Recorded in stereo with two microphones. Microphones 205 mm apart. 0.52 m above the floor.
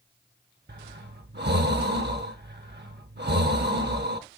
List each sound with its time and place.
0.7 s breathing: 55° right (ahead or behind), 0.8 m